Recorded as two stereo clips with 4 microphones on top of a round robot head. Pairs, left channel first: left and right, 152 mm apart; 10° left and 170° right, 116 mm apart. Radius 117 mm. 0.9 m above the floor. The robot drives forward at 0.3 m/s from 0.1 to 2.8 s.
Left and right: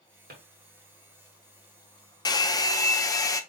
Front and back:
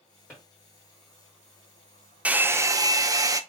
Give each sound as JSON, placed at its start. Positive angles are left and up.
{"t": 0.3, "sound": "a drawer", "azimuth_deg": -70, "distance_m": 1.5}
{"t": 2.2, "sound": "a hair dryer", "azimuth_deg": 120, "distance_m": 0.5}